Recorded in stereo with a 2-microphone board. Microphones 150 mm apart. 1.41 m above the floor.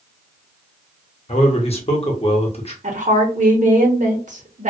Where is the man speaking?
45° left (ahead or behind), 0.9 m.